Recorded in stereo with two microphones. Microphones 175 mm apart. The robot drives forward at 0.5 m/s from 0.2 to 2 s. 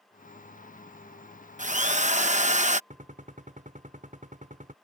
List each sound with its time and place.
1.6 s a drill: 45° right (ahead or behind)
2.9 s a gunshot: 45° right (ahead or behind)